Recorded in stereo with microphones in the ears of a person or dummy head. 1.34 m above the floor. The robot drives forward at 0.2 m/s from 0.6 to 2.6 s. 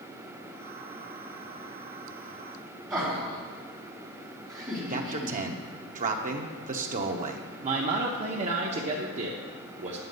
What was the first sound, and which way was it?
Laughter, 15° right (ahead or behind).